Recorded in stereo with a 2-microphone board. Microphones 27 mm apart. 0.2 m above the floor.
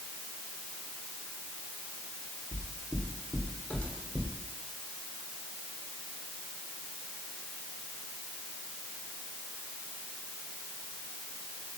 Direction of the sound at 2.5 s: 40° left (ahead or behind).